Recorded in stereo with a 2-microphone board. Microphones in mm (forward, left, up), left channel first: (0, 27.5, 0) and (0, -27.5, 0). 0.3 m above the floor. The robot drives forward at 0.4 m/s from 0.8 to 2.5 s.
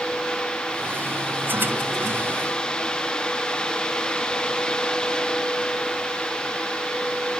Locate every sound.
Only background noise.